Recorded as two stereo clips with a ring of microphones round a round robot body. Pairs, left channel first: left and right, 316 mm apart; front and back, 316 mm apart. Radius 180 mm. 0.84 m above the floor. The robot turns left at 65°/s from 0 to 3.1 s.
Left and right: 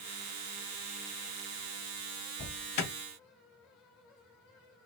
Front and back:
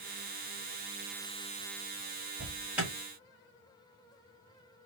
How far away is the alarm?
About 1.3 m.